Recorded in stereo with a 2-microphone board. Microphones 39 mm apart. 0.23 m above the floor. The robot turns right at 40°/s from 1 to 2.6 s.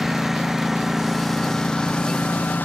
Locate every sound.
0.0 s a lawn mower: 10° right; by 2.6 s 55° left